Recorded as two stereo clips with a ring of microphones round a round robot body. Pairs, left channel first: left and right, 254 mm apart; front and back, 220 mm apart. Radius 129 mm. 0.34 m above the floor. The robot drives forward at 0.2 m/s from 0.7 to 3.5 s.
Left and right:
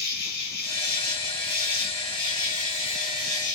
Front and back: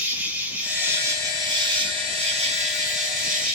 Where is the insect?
105° left, 0.9 m; by 3.5 s 145° left, 1.1 m.